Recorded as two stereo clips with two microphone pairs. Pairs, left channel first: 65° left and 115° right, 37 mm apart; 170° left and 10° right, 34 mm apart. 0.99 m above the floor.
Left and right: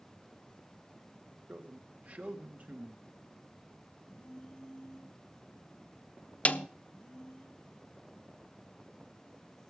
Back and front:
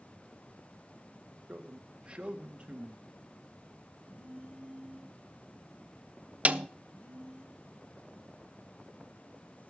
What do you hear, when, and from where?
1.5 s a man speaking: 65° right, 1.4 m
4.0 s a phone buzzing: 135° left, 5.5 m
6.5 s a snare drum: 25° left, 0.5 m